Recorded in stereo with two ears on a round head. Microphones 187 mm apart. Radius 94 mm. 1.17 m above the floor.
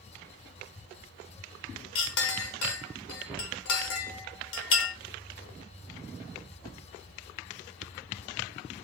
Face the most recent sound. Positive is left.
turn(degrees=65)  # may be behind; listen again after turning